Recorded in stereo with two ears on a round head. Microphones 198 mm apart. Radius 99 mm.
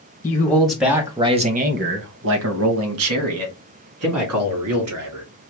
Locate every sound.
0.2 s a man speaking: 15° left (ahead or behind), 1.1 m; by 5.2 s 75° right (ahead or behind), 2.5 m